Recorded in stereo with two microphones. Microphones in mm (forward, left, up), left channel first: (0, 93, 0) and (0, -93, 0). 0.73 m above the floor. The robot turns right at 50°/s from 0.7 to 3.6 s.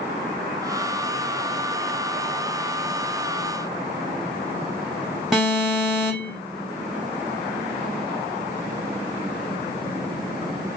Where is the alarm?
Centre (ahead or behind), 3 m.